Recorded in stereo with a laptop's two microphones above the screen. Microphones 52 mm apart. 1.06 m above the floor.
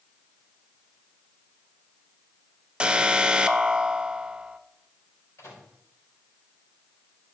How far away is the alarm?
About 0.8 m.